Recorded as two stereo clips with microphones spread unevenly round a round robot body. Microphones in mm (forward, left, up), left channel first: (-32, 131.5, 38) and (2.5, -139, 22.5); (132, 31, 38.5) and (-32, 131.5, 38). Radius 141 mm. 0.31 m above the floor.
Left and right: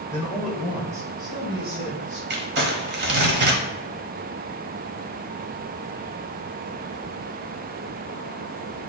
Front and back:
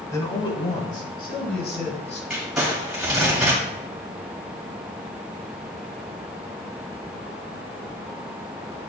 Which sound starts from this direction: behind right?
Crumpling, at 2.3 s.